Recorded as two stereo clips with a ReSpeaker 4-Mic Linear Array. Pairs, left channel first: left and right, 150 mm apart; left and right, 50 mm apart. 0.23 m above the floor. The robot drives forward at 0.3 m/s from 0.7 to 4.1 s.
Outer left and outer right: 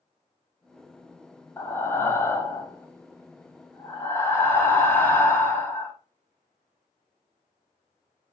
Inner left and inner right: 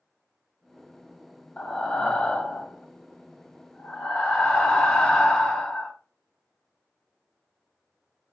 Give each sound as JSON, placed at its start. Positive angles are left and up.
{"t": 1.6, "sound": "breathing", "side_deg": 15, "distance_m": 0.6}